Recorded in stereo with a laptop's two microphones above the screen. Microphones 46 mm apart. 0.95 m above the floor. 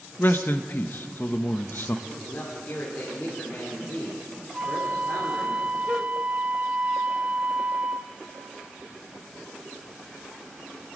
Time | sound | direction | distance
0.2 | a man speaking | 45° left (ahead or behind) | 0.8 m
2.1 | a man speaking | 45° left (ahead or behind) | 3 m
4.5 | a flute | 30° right (ahead or behind) | 0.7 m